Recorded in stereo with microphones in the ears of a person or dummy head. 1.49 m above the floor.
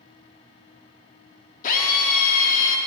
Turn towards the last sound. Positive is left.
turn(degrees=50)  # may be behind; listen again after turning